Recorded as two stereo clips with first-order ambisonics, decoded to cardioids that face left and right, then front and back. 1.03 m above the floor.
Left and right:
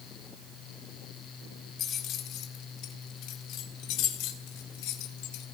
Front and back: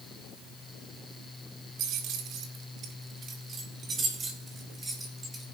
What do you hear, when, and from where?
1.8 s keys jangling: 140° left, 1.7 m; by 5.5 s 105° left, 3 m